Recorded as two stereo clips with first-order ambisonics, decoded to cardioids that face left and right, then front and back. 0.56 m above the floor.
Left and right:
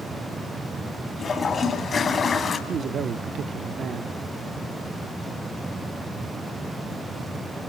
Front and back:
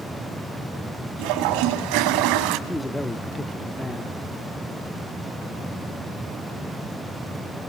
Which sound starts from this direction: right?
A man speaking, at 2.7 s.